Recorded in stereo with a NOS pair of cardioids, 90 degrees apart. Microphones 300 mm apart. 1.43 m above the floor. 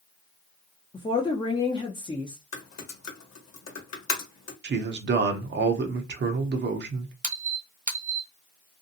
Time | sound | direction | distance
0.9 | a woman speaking | 15° left | 0.6 m
2.5 | typing on a keyboard | 55° left | 1.2 m
4.6 | a man speaking | 35° right | 0.7 m
7.2 | a squeak | 25° right | 0.8 m